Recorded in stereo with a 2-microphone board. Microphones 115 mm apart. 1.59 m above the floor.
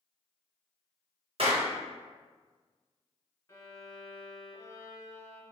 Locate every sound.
1.4 s a clap: 55° right (ahead or behind), 1.1 m
3.5 s a violin: 25° left (ahead or behind), 1.5 m